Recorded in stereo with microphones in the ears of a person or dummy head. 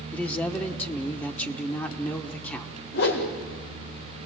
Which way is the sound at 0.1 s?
10° left (ahead or behind).